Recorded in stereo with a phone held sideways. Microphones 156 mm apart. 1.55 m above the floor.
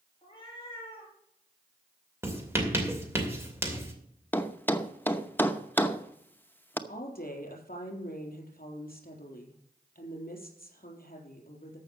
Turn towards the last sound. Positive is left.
turn(degrees=65)  # may be behind; listen again after turning